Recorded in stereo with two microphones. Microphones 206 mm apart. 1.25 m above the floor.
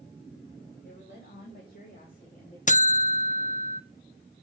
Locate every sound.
0.8 s a woman speaking: 60° left (ahead or behind), 3 m; by 2.6 s 40° left (ahead or behind), 3 m
2.7 s a buzzer: 35° left (ahead or behind), 0.7 m